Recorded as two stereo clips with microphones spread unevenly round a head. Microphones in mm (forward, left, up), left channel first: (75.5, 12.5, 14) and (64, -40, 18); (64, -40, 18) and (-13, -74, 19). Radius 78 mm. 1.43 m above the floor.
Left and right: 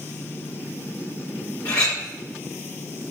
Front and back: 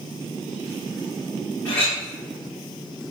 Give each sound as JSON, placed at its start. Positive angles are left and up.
{"t": 1.6, "sound": "a clink", "azimuth_deg": 105, "distance_m": 2.0}